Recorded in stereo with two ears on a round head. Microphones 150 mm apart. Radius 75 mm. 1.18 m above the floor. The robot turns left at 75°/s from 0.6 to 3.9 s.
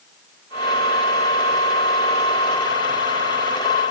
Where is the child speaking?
I don't hear a child speaking.